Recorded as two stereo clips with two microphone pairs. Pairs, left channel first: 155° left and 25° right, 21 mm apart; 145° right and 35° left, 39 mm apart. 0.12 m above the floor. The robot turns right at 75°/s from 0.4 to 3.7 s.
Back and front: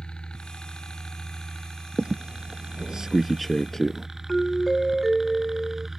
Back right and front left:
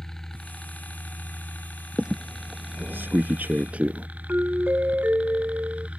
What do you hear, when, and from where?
0.0 s a helicopter: 145° left; by 6.0 s 40° left
2.0 s a squeak: 45° right; by 4.1 s 85° left
4.3 s a doorbell: 75° left